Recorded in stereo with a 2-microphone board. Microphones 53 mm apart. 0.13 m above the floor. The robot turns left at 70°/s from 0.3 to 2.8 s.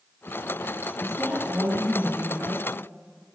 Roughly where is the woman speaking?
Ahead.